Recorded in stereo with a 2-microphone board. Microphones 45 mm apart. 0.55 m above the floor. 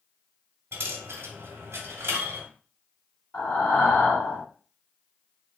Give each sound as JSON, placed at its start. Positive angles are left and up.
{"t": 0.7, "sound": "a dropped coin", "side_deg": -65, "distance_m": 1.0}
{"t": 3.3, "sound": "breathing", "side_deg": 55, "distance_m": 1.9}